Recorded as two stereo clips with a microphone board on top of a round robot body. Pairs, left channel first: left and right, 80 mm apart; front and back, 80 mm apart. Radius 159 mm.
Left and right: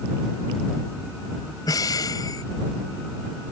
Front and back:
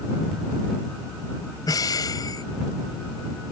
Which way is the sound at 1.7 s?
45° left.